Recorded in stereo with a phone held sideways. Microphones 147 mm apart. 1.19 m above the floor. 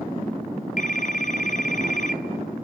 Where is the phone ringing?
60° left (ahead or behind), 1.1 m.